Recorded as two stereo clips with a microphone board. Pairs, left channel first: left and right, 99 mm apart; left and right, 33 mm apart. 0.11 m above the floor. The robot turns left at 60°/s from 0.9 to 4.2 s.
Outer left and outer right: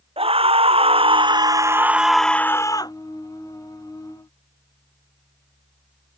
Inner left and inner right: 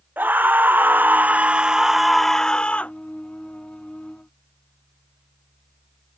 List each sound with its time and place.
0.2 s a scream: 105° right; by 2.9 s 135° left